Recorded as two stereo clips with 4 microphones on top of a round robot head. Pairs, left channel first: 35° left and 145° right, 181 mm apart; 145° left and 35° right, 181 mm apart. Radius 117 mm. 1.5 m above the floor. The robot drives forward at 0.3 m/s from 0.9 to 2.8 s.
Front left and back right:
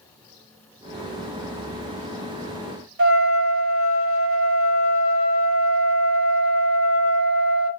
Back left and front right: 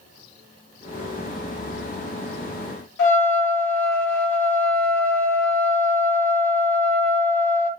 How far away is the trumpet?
About 1.2 m.